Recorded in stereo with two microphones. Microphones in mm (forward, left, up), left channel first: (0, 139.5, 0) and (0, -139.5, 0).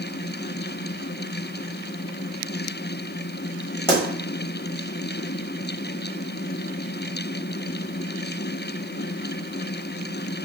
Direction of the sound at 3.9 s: 20° left (ahead or behind).